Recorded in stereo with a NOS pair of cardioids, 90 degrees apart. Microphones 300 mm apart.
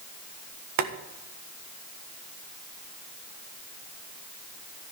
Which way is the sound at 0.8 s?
65° right.